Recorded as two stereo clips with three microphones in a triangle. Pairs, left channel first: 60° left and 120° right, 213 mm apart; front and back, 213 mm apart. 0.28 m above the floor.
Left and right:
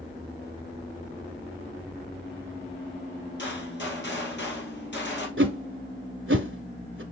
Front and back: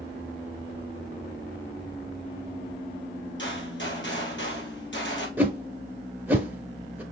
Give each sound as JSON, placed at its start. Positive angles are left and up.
{"t": 3.4, "sound": "a gunshot", "azimuth_deg": 25, "distance_m": 1.7}
{"t": 5.4, "sound": "a whoosh", "azimuth_deg": -100, "distance_m": 0.7}